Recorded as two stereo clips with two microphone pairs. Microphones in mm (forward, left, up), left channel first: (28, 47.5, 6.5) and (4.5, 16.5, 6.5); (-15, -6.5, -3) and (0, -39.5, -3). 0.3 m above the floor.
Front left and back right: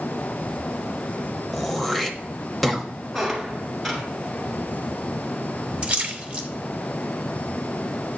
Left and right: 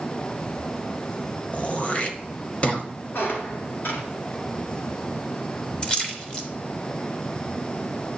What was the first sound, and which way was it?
Throat clearing, 135° left.